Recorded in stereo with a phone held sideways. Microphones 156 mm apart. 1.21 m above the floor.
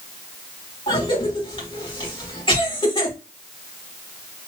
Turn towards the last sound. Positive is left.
turn(degrees=35)  # may be behind; listen again after turning